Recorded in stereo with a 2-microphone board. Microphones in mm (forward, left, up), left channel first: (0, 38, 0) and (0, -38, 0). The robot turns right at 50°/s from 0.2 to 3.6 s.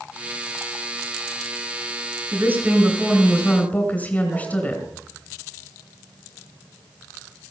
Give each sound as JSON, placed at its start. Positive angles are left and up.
{"t": 2.3, "sound": "a woman speaking", "azimuth_deg": -35, "distance_m": 2.5}